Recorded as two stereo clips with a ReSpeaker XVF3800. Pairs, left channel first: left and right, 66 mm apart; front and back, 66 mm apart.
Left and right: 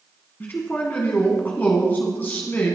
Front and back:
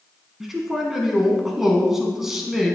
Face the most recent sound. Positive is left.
turn(degrees=100)